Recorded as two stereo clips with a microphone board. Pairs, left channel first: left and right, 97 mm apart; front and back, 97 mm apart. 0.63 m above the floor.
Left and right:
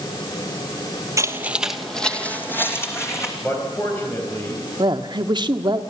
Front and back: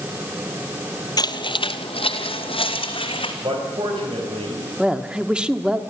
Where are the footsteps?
35° right, 1.1 m; by 3.3 s 30° left, 3 m.